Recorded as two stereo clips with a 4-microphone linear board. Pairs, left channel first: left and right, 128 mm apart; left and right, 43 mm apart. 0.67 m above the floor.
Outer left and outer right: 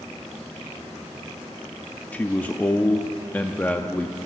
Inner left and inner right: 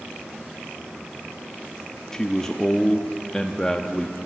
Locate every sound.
2.1 s a man speaking: 15° left (ahead or behind), 0.6 m